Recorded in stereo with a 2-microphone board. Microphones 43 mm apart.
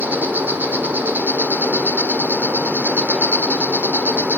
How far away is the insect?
About 1.3 m.